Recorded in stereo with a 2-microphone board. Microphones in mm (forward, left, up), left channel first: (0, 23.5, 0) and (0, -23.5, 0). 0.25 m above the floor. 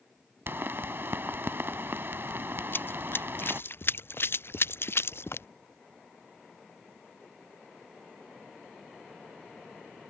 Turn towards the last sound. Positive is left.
turn(degrees=60)  # may be behind; listen again after turning